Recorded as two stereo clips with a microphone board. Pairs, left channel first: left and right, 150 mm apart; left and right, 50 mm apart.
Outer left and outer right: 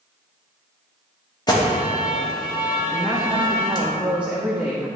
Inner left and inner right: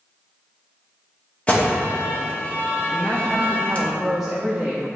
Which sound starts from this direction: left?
An alarm, at 1.5 s.